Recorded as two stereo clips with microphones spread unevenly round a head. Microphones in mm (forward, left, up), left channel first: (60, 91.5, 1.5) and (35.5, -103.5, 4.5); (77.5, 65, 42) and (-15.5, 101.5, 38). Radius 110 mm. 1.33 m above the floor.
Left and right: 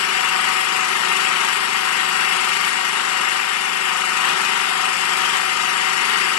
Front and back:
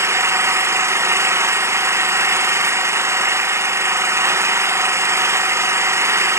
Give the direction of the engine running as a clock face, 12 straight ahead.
9 o'clock.